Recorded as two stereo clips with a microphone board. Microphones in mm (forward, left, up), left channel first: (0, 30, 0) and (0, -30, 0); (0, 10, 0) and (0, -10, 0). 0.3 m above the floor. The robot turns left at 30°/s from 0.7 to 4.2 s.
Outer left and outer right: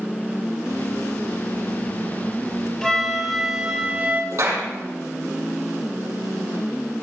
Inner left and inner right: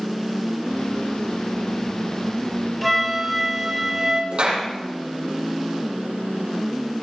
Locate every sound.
2.8 s a flute: 10° left, 5.5 m; by 4.2 s 35° right, 5.5 m
4.3 s a clap: 60° right (ahead or behind), 7 m